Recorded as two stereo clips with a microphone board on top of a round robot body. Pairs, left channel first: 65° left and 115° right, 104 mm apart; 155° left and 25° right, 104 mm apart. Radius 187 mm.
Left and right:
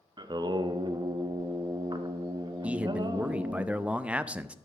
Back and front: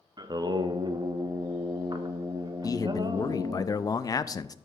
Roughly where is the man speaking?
Behind.